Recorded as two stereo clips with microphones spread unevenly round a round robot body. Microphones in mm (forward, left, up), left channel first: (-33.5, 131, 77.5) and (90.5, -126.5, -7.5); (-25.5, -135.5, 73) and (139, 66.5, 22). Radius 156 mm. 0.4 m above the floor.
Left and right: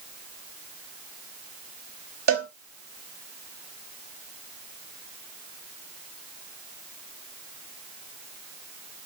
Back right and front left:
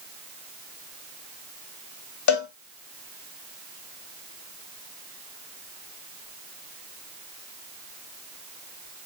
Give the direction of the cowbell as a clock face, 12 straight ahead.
4 o'clock.